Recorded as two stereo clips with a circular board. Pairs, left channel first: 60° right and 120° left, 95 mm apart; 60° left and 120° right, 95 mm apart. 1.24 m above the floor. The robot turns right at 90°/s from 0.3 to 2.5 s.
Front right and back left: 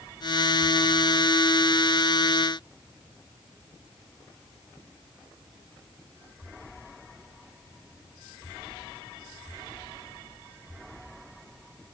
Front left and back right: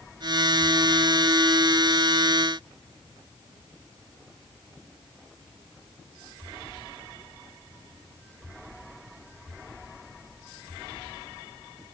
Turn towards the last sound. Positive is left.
No sound to turn to.